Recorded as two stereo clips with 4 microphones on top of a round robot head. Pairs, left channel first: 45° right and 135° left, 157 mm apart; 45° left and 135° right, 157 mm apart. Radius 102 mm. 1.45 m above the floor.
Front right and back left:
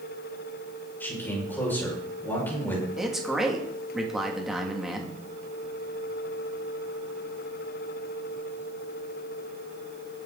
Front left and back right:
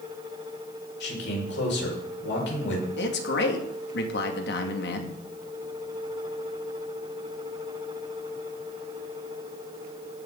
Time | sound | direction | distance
1.0 | a man speaking | 35° left | 6 m
3.0 | a man speaking | 45° left | 2.5 m